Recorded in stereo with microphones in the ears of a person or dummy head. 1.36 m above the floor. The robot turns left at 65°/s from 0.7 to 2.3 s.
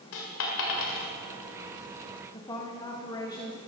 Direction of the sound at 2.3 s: 20° left (ahead or behind).